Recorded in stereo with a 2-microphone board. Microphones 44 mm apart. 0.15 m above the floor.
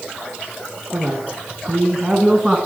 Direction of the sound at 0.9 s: 40° right (ahead or behind).